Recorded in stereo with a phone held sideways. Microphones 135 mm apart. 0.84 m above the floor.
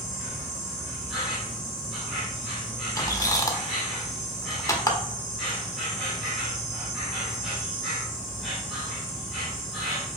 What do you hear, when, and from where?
0.0 s an insect: 5° left (ahead or behind), 1.8 m
3.0 s a squeak: 25° left (ahead or behind), 0.6 m